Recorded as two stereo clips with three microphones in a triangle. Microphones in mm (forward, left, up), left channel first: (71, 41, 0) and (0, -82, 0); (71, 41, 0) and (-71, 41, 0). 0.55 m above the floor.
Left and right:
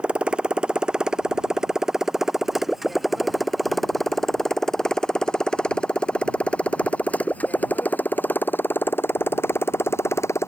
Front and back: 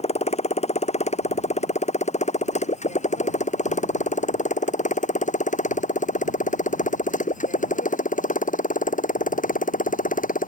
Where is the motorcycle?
40° right; by 10.5 s 10° right.